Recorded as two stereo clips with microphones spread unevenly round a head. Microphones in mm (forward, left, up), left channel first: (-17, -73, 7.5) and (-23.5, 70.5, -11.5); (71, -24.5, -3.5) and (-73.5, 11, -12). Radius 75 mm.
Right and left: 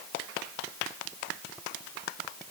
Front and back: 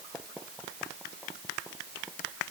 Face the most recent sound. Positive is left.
No sound to turn to.